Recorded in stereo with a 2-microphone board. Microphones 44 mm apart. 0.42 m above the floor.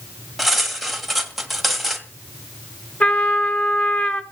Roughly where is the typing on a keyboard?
I don't hear typing on a keyboard.